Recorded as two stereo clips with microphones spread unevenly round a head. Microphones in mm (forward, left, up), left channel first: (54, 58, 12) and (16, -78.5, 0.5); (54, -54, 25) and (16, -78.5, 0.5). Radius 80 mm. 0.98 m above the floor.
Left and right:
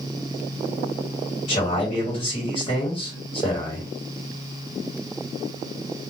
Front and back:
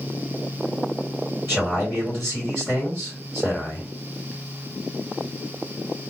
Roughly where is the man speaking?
Behind left.